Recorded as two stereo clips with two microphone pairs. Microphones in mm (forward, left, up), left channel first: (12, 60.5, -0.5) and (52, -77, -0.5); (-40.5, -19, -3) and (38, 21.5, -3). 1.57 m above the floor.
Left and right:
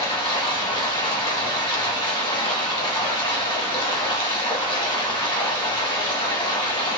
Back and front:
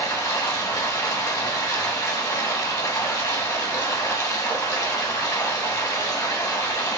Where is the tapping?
I don't hear tapping.